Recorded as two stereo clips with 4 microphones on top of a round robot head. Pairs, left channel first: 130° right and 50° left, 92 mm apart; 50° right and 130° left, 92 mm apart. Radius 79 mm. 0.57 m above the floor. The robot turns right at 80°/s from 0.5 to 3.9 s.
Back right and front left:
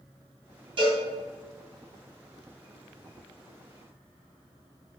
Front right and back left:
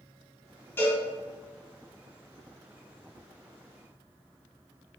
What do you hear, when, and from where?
0.8 s a cowbell: 15° left, 3 m; by 1.0 s 35° left, 3 m